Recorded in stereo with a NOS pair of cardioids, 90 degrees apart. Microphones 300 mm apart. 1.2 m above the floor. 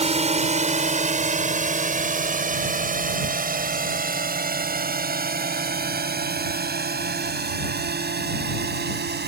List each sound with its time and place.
0.0 s a drone: 20° right; by 9.3 s 35° right